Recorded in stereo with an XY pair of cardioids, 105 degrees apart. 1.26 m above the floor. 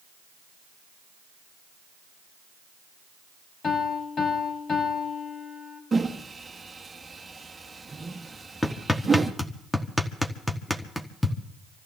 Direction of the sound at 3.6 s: 50° left.